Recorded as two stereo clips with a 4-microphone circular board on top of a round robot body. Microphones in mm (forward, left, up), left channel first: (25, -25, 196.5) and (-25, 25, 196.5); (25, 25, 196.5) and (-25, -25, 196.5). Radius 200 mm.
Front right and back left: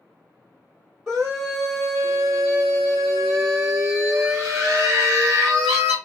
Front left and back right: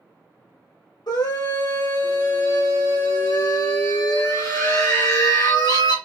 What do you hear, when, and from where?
1.1 s a scream: 45° left, 1.8 m